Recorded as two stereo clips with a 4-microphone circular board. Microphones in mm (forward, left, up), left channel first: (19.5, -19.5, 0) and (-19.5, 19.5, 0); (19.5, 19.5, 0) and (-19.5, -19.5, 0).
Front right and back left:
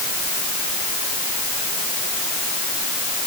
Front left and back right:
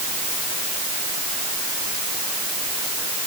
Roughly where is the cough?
No cough in this recording.